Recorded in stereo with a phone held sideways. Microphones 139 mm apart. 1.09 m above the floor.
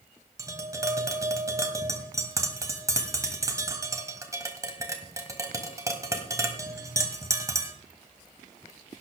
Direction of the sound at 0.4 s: 25° right (ahead or behind).